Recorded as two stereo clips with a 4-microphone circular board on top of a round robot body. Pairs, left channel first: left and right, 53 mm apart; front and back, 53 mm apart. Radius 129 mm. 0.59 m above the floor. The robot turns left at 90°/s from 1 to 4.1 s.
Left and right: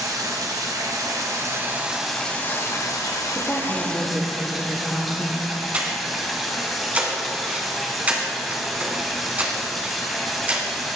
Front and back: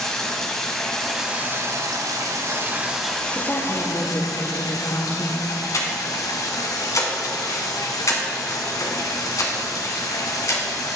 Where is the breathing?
25° right, 1.4 m.